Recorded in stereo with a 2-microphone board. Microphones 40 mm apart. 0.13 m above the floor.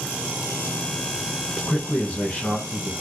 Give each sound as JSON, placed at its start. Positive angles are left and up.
{"t": 1.6, "sound": "a man speaking", "side_deg": 30, "distance_m": 1.6}